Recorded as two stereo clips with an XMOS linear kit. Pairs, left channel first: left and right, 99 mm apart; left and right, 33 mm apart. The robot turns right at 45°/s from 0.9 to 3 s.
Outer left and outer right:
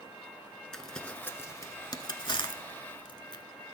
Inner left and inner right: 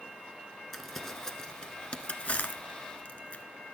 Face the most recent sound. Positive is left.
turn(degrees=55)  # may be behind; listen again after turning